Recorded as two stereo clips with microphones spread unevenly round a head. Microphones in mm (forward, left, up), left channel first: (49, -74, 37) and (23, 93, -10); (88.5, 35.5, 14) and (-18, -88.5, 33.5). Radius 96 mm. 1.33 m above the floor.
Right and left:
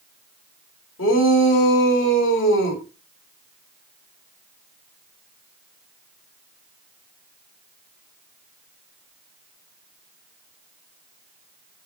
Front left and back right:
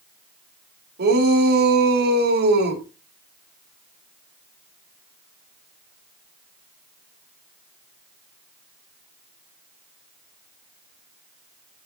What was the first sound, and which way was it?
A shout, 110° right.